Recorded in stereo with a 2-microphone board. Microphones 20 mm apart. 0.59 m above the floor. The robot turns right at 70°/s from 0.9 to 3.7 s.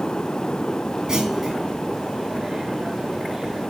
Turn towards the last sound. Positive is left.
turn(degrees=145)